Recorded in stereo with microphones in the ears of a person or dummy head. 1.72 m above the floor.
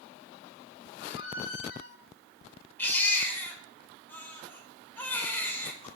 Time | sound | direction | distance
1.0 | a squeak | 75° left (ahead or behind) | 4 m
2.8 | a baby crying | 15° left (ahead or behind) | 4 m